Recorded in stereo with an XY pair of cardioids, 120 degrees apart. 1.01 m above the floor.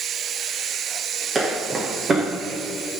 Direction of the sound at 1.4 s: 30° right.